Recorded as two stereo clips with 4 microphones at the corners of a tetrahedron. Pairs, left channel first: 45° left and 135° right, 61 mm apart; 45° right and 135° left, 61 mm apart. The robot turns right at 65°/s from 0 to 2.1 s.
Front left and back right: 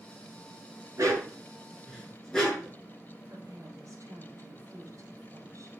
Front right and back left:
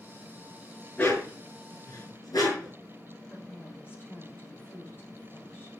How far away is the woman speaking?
About 3.5 m.